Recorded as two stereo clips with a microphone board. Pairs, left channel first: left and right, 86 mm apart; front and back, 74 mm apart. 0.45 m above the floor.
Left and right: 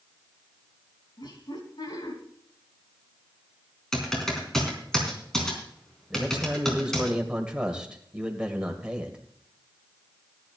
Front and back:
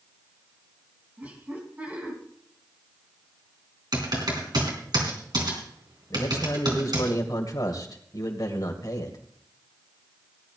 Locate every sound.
1.2 s laughter: 115° left, 4 m
3.9 s typing on a keyboard: 175° left, 4 m
6.1 s a man speaking: 15° right, 2 m